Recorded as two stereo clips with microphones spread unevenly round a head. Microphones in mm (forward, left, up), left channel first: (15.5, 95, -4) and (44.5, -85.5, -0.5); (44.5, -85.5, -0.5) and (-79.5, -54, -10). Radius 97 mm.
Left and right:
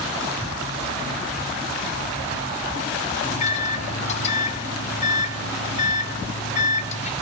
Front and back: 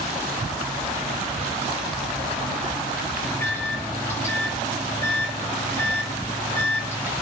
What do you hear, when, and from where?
3.2 s a microwave: 60° left, 0.6 m